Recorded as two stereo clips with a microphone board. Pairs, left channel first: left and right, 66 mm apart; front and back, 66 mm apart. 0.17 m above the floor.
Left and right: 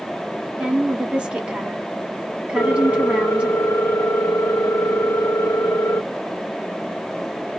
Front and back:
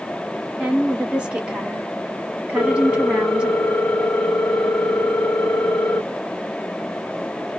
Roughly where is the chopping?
No chopping in this recording.